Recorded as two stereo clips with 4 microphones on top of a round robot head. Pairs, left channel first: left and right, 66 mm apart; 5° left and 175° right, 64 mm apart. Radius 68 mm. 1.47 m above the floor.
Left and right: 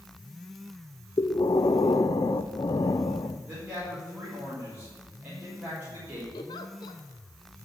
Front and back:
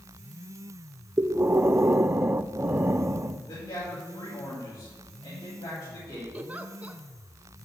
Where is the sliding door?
No sliding door in this recording.